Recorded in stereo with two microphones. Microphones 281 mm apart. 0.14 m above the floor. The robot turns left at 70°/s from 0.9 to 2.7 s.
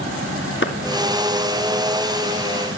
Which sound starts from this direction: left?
A clap, at 0.6 s.